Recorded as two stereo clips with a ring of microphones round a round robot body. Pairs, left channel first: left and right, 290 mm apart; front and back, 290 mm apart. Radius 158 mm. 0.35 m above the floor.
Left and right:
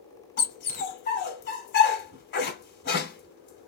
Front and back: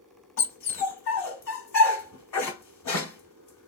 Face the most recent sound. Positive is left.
turn(degrees=35)